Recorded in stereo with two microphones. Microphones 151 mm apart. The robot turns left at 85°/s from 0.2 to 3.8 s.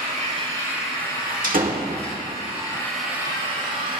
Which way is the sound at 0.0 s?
120° right.